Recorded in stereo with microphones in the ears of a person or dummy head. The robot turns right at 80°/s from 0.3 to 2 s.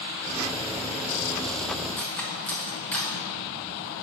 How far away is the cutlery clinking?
About 0.9 m.